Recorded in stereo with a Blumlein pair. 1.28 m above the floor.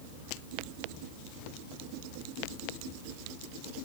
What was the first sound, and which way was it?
Only background noise.